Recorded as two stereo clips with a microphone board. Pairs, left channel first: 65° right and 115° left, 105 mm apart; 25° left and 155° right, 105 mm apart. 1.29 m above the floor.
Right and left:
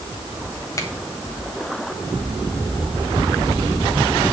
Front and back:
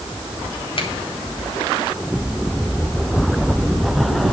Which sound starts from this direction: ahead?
A finger snap, at 0.8 s.